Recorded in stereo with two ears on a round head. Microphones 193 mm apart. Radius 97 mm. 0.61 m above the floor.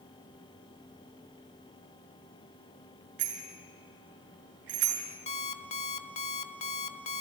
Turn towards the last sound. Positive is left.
turn(degrees=30)  # may be behind; listen again after turning